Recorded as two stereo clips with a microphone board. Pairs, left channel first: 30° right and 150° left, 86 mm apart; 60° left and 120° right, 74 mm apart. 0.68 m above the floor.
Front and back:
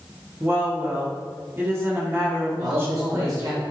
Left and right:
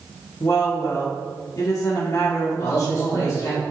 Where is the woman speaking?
95° left, 1.4 m.